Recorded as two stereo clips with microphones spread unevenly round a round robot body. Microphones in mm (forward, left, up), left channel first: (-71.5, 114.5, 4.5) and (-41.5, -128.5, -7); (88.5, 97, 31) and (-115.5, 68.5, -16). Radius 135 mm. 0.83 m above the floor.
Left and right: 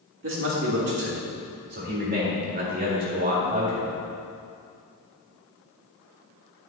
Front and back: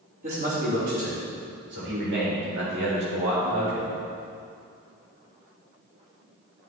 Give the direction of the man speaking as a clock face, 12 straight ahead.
4 o'clock.